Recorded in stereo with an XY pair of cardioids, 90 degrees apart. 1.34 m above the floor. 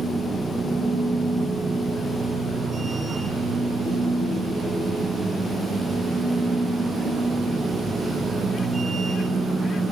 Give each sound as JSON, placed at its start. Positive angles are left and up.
{"t": 0.0, "sound": "a machine running", "azimuth_deg": -35, "distance_m": 5.0}